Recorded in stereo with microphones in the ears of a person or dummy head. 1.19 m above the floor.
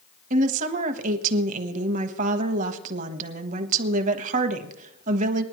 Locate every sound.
0.3 s a woman speaking: 45° right (ahead or behind), 1.2 m